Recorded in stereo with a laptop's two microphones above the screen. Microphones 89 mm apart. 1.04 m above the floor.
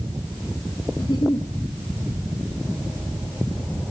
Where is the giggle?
55° left (ahead or behind), 1.5 m.